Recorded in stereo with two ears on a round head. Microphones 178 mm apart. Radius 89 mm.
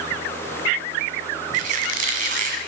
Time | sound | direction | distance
1.5 | a squeak | 45° right (ahead or behind) | 1.9 m